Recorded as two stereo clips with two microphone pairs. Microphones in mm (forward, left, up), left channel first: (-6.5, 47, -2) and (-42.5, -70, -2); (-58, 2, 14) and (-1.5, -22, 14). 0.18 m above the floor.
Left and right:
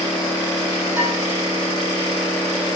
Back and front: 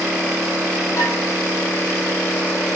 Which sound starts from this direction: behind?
Dishes clattering, at 1.0 s.